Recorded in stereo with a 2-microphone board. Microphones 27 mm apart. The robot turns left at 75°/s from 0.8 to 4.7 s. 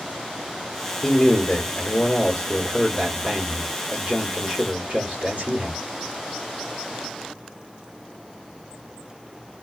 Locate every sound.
1.0 s a man speaking: 155° left, 1.3 m; by 5.8 s 120° right, 1.3 m